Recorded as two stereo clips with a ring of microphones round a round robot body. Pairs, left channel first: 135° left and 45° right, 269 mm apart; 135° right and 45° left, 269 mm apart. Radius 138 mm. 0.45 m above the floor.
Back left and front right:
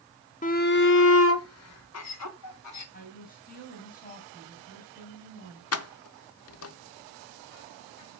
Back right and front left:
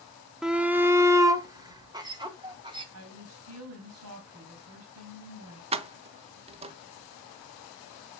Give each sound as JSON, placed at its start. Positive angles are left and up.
{"t": 0.4, "sound": "a shout", "azimuth_deg": 130, "distance_m": 0.7}
{"t": 2.9, "sound": "a woman speaking", "azimuth_deg": 75, "distance_m": 4.0}
{"t": 5.7, "sound": "keys jangling", "azimuth_deg": 110, "distance_m": 0.9}